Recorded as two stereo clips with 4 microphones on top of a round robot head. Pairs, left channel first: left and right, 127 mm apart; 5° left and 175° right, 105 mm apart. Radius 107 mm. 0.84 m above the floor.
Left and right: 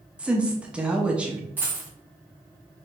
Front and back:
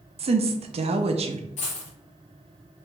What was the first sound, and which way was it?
A woman speaking, 170° right.